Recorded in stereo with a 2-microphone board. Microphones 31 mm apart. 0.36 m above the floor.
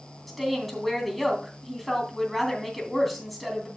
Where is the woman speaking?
Centre (ahead or behind), 2.5 m.